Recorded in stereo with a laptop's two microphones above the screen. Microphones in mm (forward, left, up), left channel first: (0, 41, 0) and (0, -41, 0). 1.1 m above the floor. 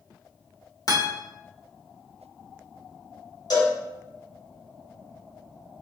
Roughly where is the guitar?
Left.